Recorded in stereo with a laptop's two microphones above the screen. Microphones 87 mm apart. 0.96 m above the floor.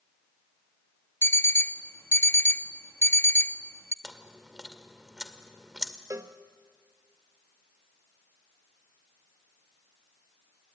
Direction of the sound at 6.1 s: 40° right (ahead or behind).